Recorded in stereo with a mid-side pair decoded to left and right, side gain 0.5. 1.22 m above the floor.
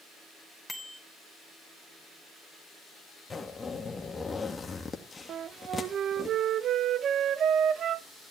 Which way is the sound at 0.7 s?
10° left.